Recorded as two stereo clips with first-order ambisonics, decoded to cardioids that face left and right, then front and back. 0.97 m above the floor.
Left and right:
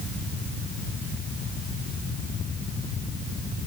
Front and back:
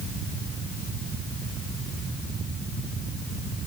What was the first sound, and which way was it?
Only background noise.